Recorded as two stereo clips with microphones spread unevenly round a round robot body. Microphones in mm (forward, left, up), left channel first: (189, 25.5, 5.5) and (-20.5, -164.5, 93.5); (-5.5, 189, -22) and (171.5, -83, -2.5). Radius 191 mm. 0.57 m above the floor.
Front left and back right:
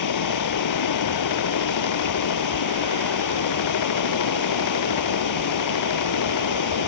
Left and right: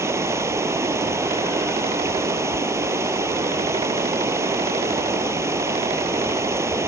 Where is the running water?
25° left.